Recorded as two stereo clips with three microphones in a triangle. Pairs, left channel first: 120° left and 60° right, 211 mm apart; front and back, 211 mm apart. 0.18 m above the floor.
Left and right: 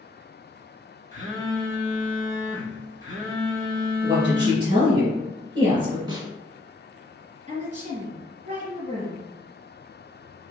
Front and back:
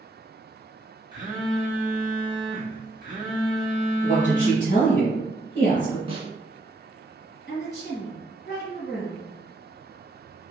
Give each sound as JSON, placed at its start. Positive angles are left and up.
{"t": 1.1, "sound": "a phone buzzing", "azimuth_deg": -115, "distance_m": 1.1}
{"t": 4.0, "sound": "a woman speaking", "azimuth_deg": -15, "distance_m": 1.7}
{"t": 6.1, "sound": "a snare drum", "azimuth_deg": -125, "distance_m": 0.7}
{"t": 7.5, "sound": "a woman speaking", "azimuth_deg": -20, "distance_m": 1.9}